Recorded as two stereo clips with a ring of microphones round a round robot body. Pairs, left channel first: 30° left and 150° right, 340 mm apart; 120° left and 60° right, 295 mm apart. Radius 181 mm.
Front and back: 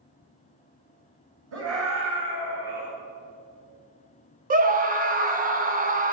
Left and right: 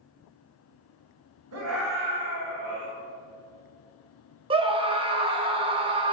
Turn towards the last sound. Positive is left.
turn(degrees=-115)